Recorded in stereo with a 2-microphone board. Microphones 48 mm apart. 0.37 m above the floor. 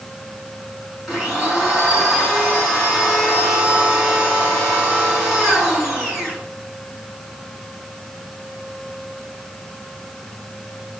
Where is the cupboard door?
No cupboard door in this recording.